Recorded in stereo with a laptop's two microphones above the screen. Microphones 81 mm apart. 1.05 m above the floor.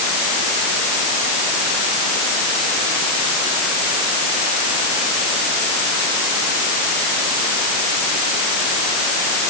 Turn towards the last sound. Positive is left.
No sound to turn to.